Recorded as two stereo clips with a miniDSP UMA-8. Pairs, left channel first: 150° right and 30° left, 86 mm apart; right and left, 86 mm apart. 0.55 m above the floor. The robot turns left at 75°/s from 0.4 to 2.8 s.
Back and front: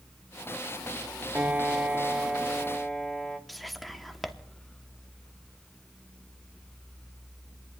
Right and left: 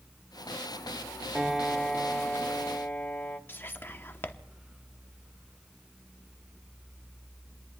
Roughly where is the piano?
Ahead.